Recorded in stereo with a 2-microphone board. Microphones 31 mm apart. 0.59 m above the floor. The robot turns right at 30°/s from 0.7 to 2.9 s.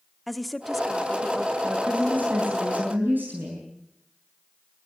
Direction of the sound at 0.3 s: Centre (ahead or behind).